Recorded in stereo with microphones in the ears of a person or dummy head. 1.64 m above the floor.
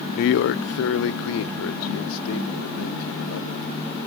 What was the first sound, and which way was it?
A man speaking, 50° left (ahead or behind).